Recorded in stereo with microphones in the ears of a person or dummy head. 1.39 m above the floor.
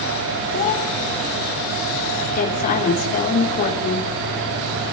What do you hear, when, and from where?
0.5 s a child speaking: 35° left (ahead or behind), 2.0 m
2.4 s a woman speaking: 40° left (ahead or behind), 3.5 m